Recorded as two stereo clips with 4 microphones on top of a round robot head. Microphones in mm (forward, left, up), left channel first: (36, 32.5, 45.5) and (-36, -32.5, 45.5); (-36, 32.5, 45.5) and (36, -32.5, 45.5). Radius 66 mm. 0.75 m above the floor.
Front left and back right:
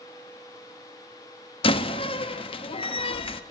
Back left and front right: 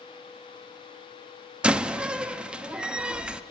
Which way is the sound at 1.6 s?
35° left.